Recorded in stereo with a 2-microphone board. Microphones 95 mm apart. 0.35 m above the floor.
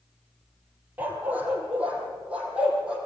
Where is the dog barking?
20° right (ahead or behind), 3 m; by 3.0 s 10° right (ahead or behind), 4.5 m.